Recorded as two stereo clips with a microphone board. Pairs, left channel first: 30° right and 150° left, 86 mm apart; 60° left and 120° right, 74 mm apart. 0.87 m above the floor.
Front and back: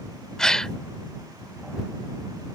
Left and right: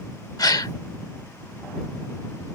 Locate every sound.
0.4 s a gasp: 50° left